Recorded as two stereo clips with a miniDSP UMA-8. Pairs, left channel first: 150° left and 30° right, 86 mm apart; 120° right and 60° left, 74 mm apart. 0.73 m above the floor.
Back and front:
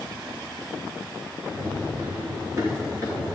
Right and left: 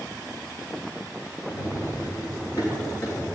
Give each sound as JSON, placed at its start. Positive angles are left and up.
{"t": 1.5, "sound": "running footsteps", "azimuth_deg": -90, "distance_m": 5.0}